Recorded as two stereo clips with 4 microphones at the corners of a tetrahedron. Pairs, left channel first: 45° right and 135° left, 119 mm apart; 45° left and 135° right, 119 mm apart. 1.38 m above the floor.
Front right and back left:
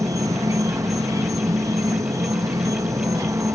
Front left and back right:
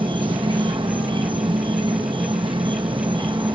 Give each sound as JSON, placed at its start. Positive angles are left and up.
{"t": 0.0, "sound": "an insect", "azimuth_deg": -165}